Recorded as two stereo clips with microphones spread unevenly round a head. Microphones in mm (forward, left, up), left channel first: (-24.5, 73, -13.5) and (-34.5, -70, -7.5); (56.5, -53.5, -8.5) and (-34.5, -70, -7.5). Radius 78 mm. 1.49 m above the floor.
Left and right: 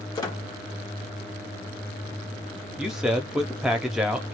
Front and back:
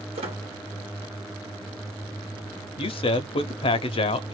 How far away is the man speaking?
About 0.8 m.